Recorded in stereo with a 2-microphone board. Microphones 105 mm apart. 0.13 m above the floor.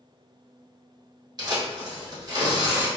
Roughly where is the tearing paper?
Right.